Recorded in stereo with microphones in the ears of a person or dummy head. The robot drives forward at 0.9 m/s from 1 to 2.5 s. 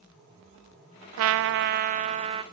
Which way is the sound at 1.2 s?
65° right (ahead or behind).